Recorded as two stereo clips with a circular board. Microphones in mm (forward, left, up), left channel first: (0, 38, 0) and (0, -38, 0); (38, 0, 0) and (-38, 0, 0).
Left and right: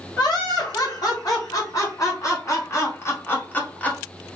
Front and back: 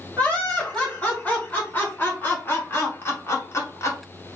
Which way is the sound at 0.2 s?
70° left.